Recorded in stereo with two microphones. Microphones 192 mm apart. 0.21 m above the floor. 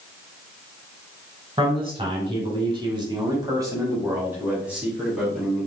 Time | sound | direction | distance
1.6 | a man speaking | 30° right (ahead or behind) | 1.6 m